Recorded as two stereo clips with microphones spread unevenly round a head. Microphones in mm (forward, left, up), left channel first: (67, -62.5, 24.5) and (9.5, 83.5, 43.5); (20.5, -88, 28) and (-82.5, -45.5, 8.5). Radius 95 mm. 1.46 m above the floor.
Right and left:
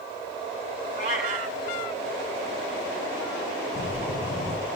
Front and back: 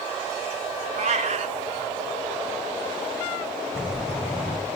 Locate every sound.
1.0 s a cat meowing: 170° left, 2.5 m
3.8 s breathing: 115° right, 3 m